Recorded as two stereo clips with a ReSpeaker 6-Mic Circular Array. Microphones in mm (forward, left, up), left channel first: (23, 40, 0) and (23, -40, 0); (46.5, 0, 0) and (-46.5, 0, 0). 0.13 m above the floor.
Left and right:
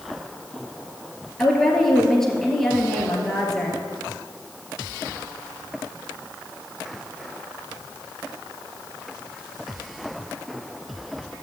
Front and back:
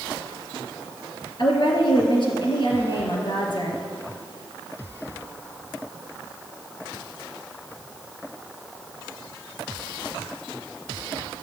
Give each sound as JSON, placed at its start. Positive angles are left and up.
{"t": 1.4, "sound": "a woman speaking", "azimuth_deg": 5, "distance_m": 2.5}